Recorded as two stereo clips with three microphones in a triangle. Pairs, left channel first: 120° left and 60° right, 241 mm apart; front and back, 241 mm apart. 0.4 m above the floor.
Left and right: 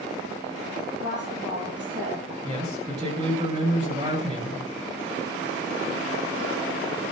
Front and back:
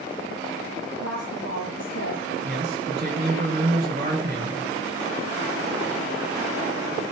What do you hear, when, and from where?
1.0 s a woman speaking: 15° right, 9.5 m
2.4 s a man speaking: 125° right, 7 m